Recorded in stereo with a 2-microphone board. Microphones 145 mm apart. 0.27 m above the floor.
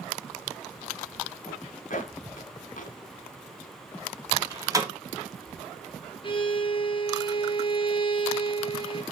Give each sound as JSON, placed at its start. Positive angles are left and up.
{"t": 1.5, "sound": "a zipper", "side_deg": 65, "distance_m": 0.9}
{"t": 4.3, "sound": "a door slam", "side_deg": -25, "distance_m": 1.4}
{"t": 6.2, "sound": "a violin", "side_deg": 35, "distance_m": 0.9}